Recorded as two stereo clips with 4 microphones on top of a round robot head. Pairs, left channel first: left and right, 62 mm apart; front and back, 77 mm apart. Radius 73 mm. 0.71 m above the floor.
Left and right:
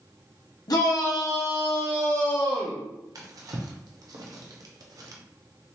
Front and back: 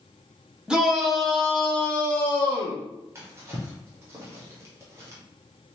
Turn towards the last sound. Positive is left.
turn(degrees=-120)